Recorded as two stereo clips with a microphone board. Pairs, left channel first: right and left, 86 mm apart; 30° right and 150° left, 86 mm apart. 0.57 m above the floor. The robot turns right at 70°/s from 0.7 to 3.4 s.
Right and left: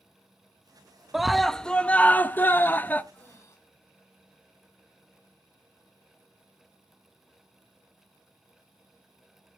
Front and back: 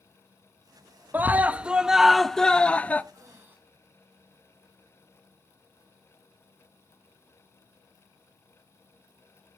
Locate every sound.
1.1 s a scream: 170° left, 0.6 m; by 3.0 s 60° right, 0.6 m
3.1 s breathing: 160° right, 4.5 m; by 3.6 s 145° right, 4.5 m